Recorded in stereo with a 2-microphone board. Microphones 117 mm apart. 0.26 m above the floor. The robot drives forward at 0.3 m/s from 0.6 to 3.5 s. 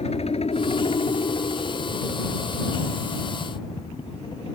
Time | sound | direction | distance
0.0 | a helicopter | 60° left (ahead or behind) | ?